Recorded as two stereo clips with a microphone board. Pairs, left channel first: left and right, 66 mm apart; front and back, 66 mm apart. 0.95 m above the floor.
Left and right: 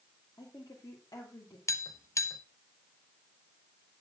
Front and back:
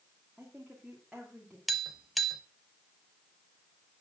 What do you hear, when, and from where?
0.4 s a woman speaking: 95° left, 2.5 m
1.7 s tapping: 90° left, 0.8 m